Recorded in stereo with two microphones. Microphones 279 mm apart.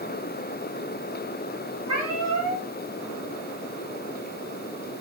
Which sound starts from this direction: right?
A cat meowing, at 1.9 s.